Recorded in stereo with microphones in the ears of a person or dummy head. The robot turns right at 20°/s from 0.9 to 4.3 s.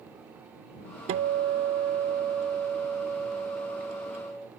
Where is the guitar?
60° right; by 4.5 s 5° left.